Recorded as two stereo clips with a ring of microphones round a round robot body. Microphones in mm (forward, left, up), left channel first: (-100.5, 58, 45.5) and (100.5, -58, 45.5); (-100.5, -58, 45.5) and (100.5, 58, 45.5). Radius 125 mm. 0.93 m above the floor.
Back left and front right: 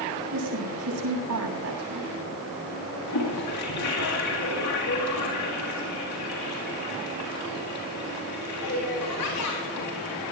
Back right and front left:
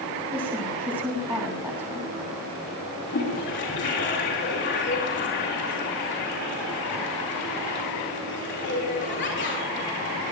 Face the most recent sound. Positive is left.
turn(degrees=165)